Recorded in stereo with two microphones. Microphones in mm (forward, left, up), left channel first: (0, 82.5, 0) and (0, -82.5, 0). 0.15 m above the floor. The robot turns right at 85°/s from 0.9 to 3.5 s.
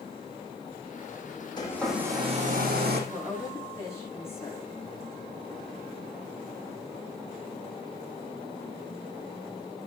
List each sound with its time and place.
1.6 s a hair dryer: 150° left, 4.5 m; by 3.0 s 85° right, 4.5 m
3.1 s a woman speaking: 20° right, 9 m; by 4.7 s 15° left, 9 m